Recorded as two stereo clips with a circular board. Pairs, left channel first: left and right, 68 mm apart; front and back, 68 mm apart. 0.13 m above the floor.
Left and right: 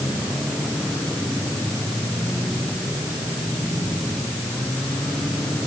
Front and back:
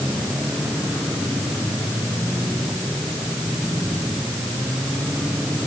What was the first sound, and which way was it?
Only background noise.